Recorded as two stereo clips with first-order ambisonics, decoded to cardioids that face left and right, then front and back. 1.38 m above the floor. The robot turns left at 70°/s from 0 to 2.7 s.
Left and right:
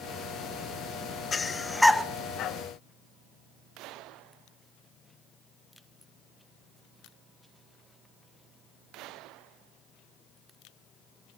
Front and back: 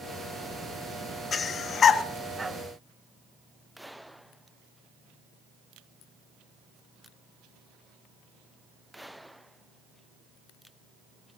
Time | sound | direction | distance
1.3 | breathing | 35° left | 0.6 m